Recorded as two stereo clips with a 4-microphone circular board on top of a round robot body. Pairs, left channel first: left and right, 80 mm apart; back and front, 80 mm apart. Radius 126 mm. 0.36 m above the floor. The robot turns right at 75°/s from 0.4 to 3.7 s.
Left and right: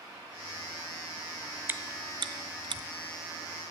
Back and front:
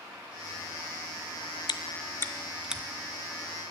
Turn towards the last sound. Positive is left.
turn(degrees=-5)